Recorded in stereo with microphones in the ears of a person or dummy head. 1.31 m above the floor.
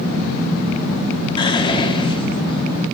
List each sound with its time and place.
1.4 s whispering: 30° left (ahead or behind), 1.5 m